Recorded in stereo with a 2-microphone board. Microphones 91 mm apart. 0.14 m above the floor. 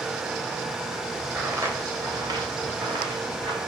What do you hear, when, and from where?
1.4 s footsteps: 25° right (ahead or behind), 1.5 m; by 3.6 s 55° right (ahead or behind), 4 m